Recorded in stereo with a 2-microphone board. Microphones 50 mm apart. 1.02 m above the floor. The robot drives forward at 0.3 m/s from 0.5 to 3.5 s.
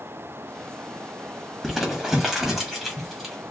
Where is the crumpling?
Centre (ahead or behind), 1.1 m.